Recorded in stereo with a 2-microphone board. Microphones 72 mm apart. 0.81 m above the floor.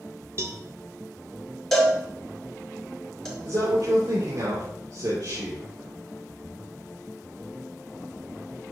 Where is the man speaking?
70° right (ahead or behind), 2 m.